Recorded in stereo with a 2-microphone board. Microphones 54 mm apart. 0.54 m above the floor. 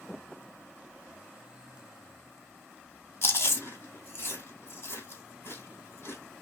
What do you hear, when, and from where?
3.2 s chewing: 50° left (ahead or behind), 1.5 m